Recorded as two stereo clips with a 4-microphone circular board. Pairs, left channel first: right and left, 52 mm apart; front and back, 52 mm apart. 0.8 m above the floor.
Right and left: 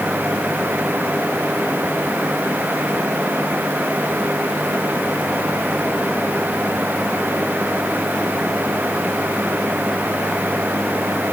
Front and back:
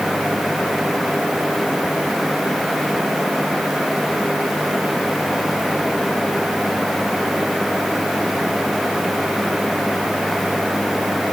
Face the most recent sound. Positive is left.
No sound to turn to.